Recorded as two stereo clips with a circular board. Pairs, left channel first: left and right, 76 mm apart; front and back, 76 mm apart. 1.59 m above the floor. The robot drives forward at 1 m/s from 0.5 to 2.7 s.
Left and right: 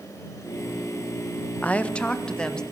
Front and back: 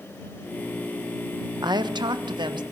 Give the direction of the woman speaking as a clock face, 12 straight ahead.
7 o'clock.